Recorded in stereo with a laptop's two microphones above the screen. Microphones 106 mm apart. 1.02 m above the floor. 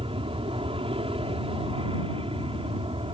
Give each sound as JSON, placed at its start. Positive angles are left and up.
{"t": 0.0, "sound": "an aircraft", "side_deg": -60}